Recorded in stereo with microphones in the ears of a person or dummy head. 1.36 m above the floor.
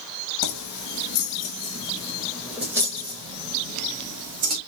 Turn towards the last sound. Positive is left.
turn(degrees=-45)  # may be behind; listen again after turning